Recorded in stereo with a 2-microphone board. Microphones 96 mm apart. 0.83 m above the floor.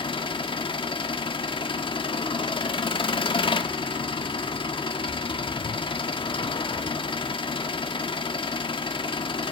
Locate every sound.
0.0 s an engine running: 60° left (ahead or behind), 1.5 m